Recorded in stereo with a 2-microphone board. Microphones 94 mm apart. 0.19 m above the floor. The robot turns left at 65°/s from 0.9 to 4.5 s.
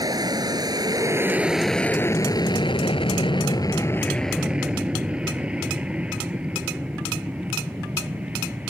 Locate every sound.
0.0 s an aircraft: 45° right (ahead or behind); by 8.7 s 15° right (ahead or behind)